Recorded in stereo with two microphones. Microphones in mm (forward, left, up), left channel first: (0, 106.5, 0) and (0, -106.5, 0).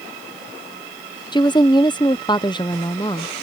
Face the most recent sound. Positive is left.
turn(degrees=20)  # may be behind; listen again after turning